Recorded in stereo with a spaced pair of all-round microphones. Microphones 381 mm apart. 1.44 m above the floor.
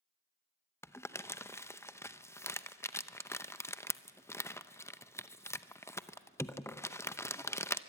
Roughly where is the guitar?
No guitar in this recording.